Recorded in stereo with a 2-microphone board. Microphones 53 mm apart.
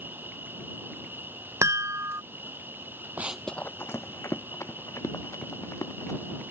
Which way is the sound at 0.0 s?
40° right (ahead or behind).